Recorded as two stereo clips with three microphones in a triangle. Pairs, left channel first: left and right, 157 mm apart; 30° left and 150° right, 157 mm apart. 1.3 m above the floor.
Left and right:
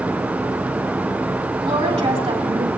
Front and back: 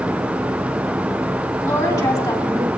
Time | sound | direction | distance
1.6 | a woman speaking | 40° right | 3 m